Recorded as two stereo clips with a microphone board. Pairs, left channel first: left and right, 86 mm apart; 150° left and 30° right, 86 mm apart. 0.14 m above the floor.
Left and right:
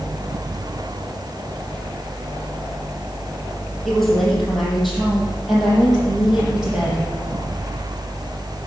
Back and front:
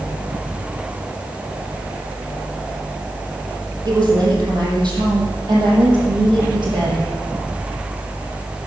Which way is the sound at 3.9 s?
5° left.